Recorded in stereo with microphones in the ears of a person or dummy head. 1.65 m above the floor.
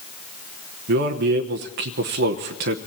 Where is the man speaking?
50° right (ahead or behind), 0.9 m.